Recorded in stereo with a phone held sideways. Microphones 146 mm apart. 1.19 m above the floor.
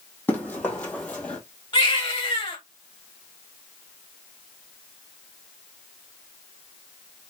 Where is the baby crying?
35° left (ahead or behind), 1.9 m.